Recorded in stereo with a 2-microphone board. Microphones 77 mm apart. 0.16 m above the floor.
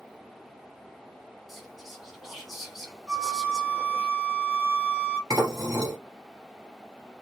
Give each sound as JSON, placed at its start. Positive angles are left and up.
{"t": 1.5, "sound": "whispering", "side_deg": -5, "distance_m": 1.6}
{"t": 3.1, "sound": "a flute", "side_deg": -25, "distance_m": 2.5}
{"t": 5.3, "sound": "dishes clattering", "side_deg": -45, "distance_m": 2.5}